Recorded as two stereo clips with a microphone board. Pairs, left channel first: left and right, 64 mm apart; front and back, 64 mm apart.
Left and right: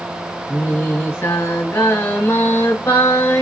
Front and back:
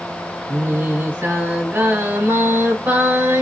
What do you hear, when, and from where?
0.5 s singing: 130° left, 1.9 m